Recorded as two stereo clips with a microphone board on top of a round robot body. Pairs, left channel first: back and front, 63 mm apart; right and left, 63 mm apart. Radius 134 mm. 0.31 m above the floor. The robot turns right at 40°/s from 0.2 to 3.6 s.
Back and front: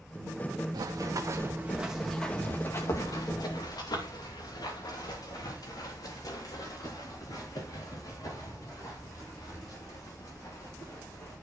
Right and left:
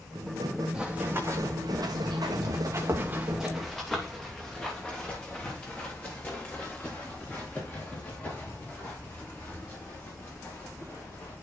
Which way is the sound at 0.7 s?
10° left.